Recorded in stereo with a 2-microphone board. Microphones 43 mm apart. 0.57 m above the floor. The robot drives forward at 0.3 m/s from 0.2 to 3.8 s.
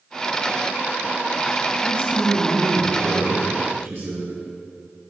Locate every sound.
1.8 s a man speaking: 55° right (ahead or behind), 2 m; by 4.3 s 65° right (ahead or behind), 2.0 m